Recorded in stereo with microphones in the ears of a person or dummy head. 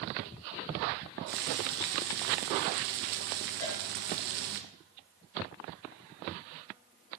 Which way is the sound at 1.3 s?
60° right (ahead or behind).